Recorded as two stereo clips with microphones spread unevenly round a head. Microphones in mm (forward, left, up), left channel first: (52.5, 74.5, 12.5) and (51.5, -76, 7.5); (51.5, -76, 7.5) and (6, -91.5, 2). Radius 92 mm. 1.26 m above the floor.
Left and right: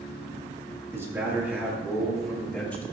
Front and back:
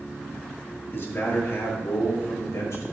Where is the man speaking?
20° right, 3 m; by 2.8 s 10° left, 2.5 m.